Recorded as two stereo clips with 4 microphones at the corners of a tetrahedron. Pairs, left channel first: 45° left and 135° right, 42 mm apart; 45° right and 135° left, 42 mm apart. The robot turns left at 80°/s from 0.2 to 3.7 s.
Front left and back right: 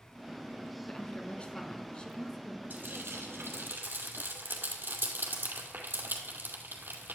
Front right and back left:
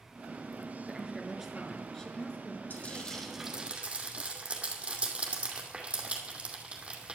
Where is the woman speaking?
105° left, 1.4 m; by 2.6 s 35° right, 1.4 m.